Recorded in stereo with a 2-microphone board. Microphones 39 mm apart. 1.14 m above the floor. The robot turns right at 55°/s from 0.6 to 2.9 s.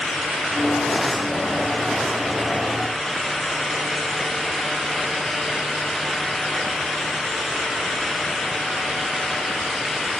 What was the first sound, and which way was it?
Only background noise.